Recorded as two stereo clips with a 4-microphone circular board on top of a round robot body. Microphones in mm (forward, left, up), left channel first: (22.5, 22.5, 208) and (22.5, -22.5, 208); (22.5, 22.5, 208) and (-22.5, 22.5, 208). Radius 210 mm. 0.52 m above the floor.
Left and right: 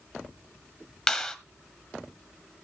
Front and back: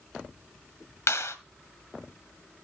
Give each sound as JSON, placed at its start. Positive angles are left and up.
{"t": 1.1, "sound": "a clap", "azimuth_deg": 5, "distance_m": 1.6}